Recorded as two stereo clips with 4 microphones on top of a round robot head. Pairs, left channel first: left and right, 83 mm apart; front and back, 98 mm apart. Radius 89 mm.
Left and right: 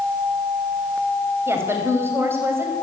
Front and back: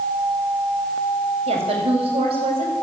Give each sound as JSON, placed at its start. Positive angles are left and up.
{"t": 1.5, "sound": "a woman speaking", "azimuth_deg": -150, "distance_m": 5.5}